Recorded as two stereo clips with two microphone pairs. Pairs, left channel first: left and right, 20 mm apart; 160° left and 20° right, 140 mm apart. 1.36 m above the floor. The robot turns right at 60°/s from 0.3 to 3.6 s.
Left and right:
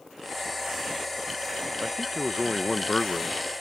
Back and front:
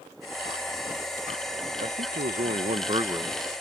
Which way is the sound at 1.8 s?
40° right.